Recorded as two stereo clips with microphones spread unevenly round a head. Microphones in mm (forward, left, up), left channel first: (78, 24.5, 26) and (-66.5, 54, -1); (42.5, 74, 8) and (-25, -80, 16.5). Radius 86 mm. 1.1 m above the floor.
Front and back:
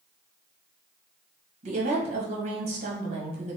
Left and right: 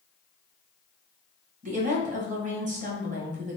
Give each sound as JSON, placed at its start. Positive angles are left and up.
{"t": 1.6, "sound": "a woman speaking", "azimuth_deg": -160, "distance_m": 1.4}